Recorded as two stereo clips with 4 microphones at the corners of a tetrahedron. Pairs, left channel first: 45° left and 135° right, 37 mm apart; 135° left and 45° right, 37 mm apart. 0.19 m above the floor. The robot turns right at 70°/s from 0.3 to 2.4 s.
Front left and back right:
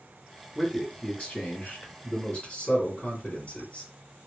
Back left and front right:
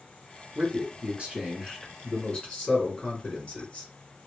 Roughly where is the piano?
No piano in this recording.